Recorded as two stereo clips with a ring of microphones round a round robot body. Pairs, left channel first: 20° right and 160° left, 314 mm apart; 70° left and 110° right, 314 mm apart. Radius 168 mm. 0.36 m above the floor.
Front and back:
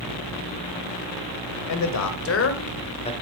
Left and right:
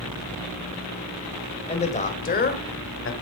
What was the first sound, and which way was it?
A man speaking, straight ahead.